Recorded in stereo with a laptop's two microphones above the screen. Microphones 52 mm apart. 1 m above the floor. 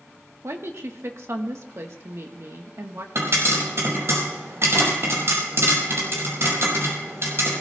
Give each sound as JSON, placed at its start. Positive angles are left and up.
{"t": 0.4, "sound": "a woman speaking", "side_deg": -60, "distance_m": 1.4}
{"t": 3.1, "sound": "a pop", "side_deg": -60, "distance_m": 6.0}